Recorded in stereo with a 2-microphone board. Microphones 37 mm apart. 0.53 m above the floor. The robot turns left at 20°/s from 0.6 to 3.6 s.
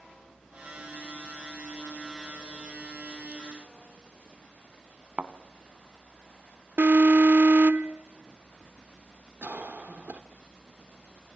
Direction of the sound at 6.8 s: 55° right (ahead or behind).